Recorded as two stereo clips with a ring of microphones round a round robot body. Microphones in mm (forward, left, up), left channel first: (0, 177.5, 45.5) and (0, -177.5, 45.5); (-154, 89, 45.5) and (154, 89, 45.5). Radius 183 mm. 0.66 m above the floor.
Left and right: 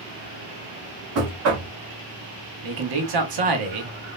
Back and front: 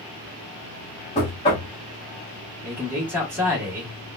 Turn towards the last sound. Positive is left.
turn(degrees=-85)